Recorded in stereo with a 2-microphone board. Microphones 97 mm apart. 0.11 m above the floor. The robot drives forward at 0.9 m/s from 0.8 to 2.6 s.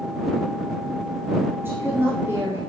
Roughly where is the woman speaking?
Right.